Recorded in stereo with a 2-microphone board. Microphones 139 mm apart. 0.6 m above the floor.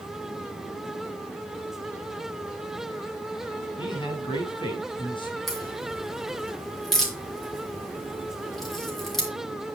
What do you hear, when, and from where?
3.8 s a man speaking: 35° left (ahead or behind), 5 m
5.5 s a crack: centre (ahead or behind), 6.5 m